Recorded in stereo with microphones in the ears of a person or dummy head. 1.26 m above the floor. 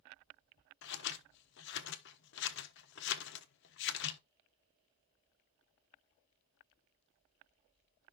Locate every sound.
0.8 s scissors: 55° left (ahead or behind), 1.1 m